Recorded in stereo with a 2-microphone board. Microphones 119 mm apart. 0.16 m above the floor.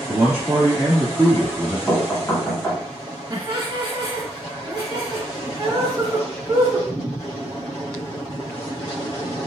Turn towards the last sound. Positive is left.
turn(degrees=-15)  # may be behind; listen again after turning